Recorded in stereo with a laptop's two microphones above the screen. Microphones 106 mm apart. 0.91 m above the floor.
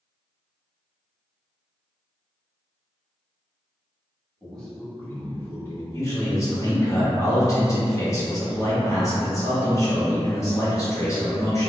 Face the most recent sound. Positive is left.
turn(degrees=30)  # may be behind; listen again after turning